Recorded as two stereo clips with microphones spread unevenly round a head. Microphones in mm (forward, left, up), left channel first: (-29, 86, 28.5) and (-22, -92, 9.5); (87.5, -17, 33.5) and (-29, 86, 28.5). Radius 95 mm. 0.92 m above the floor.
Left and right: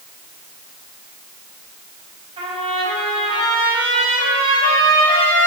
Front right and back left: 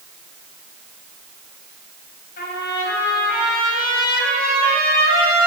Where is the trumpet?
25° right, 4.5 m.